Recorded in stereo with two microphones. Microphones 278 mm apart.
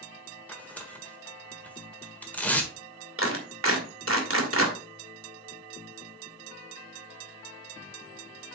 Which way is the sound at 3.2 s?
50° right (ahead or behind).